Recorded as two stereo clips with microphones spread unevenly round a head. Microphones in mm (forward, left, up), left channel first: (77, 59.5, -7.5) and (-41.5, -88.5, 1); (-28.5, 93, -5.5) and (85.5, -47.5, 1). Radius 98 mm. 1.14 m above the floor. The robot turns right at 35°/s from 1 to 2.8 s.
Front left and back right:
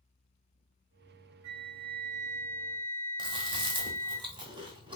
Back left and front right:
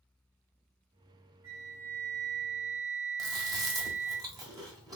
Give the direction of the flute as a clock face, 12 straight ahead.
4 o'clock.